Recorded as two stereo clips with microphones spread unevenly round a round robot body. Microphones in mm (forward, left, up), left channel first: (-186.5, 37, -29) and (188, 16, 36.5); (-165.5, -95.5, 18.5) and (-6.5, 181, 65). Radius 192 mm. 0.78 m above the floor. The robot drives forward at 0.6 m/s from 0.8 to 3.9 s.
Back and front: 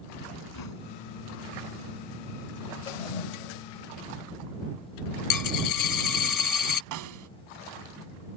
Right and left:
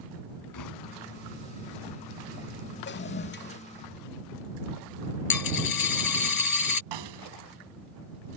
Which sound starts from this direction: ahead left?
A snare drum, at 6.9 s.